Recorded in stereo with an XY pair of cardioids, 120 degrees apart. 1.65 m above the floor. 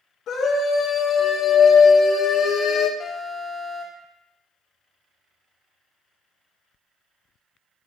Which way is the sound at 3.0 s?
30° left.